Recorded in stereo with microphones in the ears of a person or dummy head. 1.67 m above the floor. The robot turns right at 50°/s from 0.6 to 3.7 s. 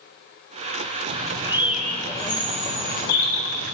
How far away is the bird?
About 0.8 m.